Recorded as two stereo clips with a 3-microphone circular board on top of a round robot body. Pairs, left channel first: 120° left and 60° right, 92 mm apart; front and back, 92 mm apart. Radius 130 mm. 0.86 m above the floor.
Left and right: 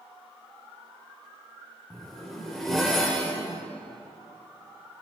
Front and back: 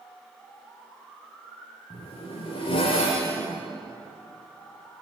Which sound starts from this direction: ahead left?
A zipper, at 1.9 s.